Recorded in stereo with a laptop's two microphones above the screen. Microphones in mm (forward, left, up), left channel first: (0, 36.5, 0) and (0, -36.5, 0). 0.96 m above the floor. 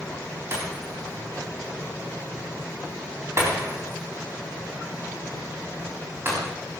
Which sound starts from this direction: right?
Breaking glass, at 0.5 s.